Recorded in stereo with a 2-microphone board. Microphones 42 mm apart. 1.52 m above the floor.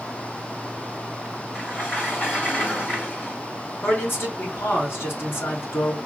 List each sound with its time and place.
1.5 s a sliding door: 60° left (ahead or behind), 5 m
3.8 s a man speaking: 65° left (ahead or behind), 4 m